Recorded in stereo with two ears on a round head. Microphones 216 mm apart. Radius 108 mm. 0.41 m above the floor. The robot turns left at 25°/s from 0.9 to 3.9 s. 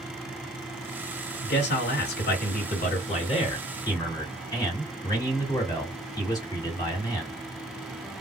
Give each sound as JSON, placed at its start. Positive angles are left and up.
{"t": 1.4, "sound": "a man speaking", "azimuth_deg": 85, "distance_m": 2.0}